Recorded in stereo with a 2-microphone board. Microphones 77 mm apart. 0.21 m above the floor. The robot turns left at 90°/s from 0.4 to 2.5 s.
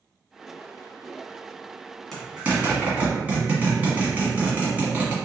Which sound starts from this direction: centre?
A zipper, at 2.1 s.